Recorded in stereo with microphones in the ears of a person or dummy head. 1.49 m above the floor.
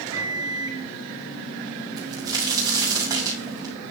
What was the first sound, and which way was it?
A microwave, 20° right (ahead or behind).